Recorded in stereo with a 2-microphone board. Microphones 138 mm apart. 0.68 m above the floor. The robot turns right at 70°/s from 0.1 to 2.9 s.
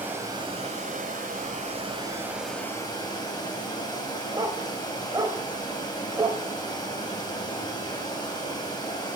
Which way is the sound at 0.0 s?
165° right.